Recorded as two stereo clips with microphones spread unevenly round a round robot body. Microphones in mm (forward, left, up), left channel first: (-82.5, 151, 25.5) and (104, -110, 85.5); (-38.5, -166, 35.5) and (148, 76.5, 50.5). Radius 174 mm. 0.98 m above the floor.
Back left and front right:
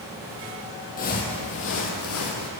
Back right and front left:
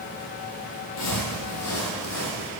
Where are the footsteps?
165° right, 1.7 m; by 2.5 s 175° left, 2 m.